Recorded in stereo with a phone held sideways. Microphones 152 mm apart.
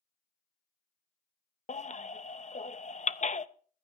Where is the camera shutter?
I don't hear a camera shutter.